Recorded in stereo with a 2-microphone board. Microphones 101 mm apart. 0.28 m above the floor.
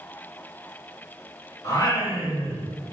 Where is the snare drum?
No snare drum in this recording.